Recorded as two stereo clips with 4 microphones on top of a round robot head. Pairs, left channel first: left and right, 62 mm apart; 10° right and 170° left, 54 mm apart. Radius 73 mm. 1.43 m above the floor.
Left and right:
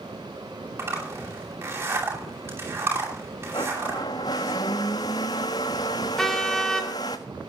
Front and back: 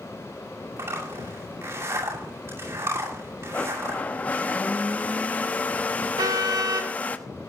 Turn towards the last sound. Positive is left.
turn(degrees=175)